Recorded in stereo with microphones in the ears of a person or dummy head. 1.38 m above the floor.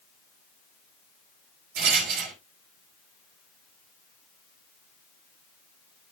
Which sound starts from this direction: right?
A rattle, at 1.8 s.